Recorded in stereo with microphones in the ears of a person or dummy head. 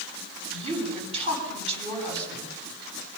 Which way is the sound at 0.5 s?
35° right (ahead or behind).